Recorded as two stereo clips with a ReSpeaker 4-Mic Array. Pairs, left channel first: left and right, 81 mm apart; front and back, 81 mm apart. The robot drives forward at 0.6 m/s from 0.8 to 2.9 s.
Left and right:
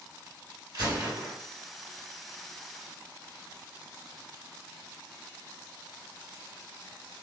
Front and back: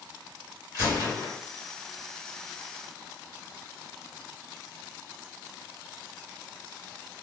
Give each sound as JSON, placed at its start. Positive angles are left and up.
{"t": 0.7, "sound": "a gunshot", "azimuth_deg": -50, "distance_m": 2.0}